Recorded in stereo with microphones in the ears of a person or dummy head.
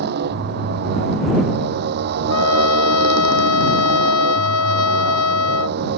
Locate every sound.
0.0 s a motorcycle: 55° right (ahead or behind)
2.3 s a trumpet: 80° left